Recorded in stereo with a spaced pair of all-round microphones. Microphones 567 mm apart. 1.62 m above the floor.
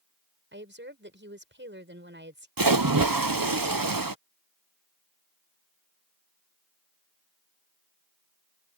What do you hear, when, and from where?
0.5 s a woman speaking: 20° right (ahead or behind)
2.6 s a splash: 35° right (ahead or behind)